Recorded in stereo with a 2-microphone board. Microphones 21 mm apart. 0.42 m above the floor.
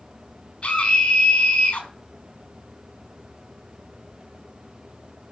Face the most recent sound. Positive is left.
turn(degrees=75)  # may be behind; listen again after turning